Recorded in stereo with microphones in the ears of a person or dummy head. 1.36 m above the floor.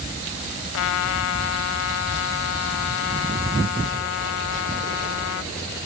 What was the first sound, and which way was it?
A trumpet, 70° left (ahead or behind).